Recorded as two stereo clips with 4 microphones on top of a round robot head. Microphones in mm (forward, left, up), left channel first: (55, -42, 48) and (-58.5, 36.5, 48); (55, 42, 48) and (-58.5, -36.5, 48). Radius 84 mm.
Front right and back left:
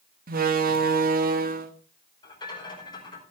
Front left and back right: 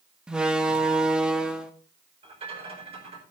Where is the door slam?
130° left, 1.5 m.